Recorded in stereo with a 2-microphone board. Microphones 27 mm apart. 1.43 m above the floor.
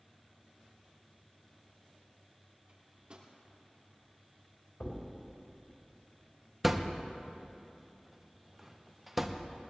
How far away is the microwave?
About 2.5 m.